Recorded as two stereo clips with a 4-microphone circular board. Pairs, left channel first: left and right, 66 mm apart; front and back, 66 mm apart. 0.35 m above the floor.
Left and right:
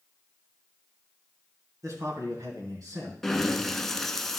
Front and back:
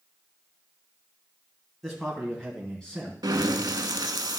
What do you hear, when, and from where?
1.8 s a man speaking: 95° right, 3 m; by 3.1 s 75° right, 3.5 m
3.2 s breathing: 175° left, 0.6 m